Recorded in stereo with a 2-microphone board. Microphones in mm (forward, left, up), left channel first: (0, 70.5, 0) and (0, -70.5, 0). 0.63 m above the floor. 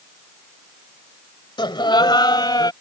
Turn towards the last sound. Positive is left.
turn(degrees=30)  # may be behind; listen again after turning